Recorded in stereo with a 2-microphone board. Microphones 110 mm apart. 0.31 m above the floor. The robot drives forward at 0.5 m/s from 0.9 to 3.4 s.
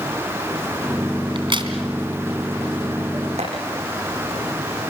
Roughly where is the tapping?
Right.